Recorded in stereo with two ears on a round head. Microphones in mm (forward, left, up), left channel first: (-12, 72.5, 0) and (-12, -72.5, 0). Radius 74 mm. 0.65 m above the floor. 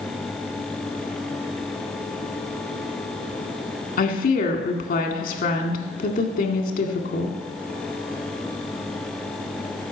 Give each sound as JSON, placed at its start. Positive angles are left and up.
{"t": 4.0, "sound": "a woman speaking", "side_deg": 55, "distance_m": 1.8}